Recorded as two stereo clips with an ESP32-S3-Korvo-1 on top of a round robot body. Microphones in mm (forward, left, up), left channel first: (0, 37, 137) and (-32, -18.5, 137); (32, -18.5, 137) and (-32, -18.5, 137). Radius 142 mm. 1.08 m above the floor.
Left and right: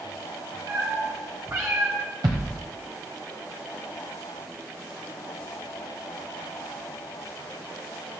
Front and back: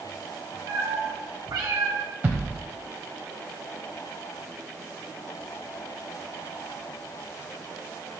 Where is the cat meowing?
160° right, 1.4 m; by 2.0 s 170° right, 0.8 m.